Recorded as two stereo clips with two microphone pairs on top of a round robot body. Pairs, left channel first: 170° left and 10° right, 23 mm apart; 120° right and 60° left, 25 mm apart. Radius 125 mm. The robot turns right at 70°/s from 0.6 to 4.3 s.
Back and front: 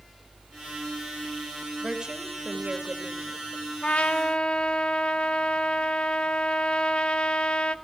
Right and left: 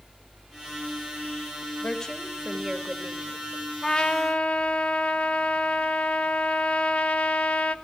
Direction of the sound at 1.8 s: 70° right.